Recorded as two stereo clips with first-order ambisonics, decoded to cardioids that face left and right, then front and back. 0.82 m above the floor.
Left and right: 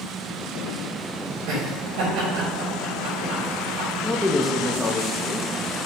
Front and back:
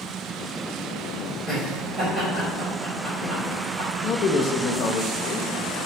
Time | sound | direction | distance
1.5 | laughter | 95° right | 3 m
4.0 | a man speaking | 10° left | 0.6 m